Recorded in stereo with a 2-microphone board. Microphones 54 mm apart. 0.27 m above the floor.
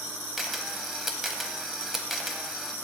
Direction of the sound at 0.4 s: 5° right (ahead or behind).